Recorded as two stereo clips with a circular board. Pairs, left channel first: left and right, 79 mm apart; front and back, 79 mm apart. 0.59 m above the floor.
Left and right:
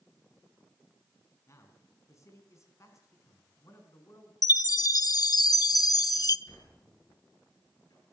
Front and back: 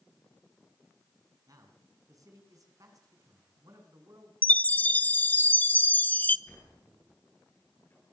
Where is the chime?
65° left, 0.9 m.